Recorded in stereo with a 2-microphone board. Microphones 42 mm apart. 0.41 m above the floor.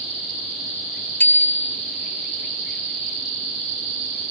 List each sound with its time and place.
1.2 s a bicycle bell: 50° left (ahead or behind), 4.5 m